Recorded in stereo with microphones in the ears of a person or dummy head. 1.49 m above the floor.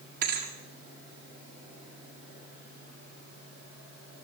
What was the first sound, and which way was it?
A thud, 50° right (ahead or behind).